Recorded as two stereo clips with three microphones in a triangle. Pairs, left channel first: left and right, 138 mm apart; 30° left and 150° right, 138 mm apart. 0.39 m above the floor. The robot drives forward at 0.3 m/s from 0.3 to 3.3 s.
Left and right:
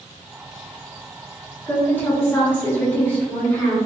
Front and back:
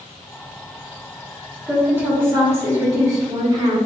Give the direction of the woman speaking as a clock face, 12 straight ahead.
7 o'clock.